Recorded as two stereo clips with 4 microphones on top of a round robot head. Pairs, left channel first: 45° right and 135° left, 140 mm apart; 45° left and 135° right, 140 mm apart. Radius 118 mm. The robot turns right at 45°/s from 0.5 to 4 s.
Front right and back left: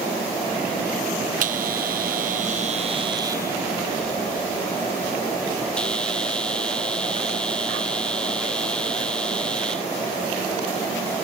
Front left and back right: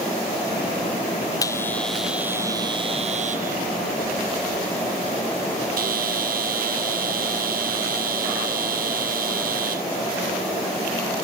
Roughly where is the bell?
Left.